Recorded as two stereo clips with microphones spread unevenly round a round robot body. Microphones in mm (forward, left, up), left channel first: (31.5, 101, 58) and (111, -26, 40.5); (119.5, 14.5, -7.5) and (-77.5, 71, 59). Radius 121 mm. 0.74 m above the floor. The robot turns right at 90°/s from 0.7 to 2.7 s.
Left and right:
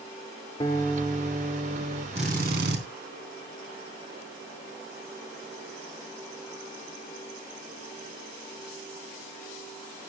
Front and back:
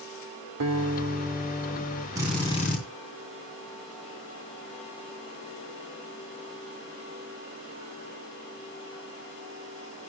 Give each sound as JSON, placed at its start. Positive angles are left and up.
{"t": 0.6, "sound": "a guitar", "azimuth_deg": -165, "distance_m": 2.5}
{"t": 2.1, "sound": "a drill", "azimuth_deg": -120, "distance_m": 3.5}